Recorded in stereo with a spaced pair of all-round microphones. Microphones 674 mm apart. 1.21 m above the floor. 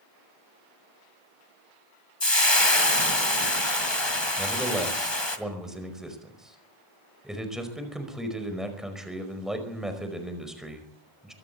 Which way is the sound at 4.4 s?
Centre (ahead or behind).